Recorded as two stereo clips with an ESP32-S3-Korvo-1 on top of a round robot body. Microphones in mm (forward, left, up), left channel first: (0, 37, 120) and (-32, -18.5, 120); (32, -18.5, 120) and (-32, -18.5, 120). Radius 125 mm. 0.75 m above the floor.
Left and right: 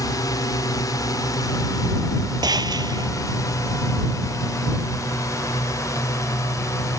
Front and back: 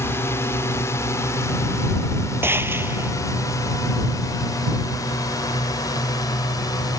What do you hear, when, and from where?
0.0 s a drone: 50° left; by 7.0 s 25° left
2.4 s a gunshot: 125° right